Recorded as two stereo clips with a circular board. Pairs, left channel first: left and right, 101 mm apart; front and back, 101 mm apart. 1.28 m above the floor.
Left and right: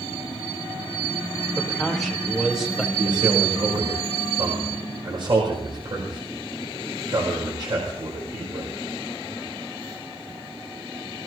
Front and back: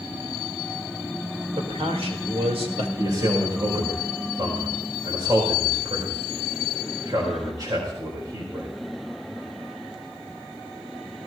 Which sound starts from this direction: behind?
A man speaking, at 1.6 s.